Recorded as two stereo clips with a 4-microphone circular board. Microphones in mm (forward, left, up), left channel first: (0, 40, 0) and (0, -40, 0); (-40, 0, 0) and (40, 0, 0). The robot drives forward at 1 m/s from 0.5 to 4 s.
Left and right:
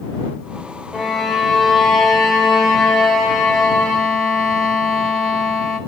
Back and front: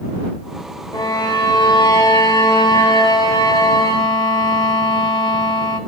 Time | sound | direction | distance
0.9 | a violin | straight behind | 1.5 m